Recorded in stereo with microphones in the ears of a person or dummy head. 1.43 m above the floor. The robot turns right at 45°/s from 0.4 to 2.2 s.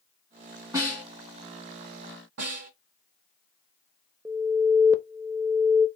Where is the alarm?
15° right (ahead or behind), 0.6 m.